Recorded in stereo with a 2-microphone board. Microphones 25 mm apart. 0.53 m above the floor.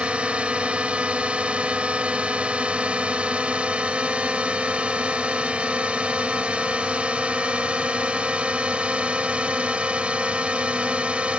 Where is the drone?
55° right (ahead or behind).